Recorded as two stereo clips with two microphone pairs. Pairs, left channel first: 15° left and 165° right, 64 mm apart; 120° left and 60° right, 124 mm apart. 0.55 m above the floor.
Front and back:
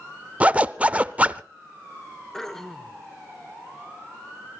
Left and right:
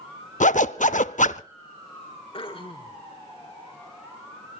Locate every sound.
0.4 s a zipper: 130° left, 0.5 m
2.3 s throat clearing: 100° left, 1.2 m